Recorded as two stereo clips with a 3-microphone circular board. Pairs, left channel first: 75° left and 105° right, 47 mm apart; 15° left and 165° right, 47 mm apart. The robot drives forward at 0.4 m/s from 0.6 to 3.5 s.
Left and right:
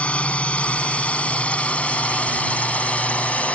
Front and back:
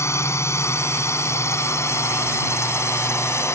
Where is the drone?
15° left.